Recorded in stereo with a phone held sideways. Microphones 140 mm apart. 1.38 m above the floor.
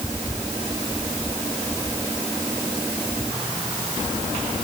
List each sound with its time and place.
Only background noise.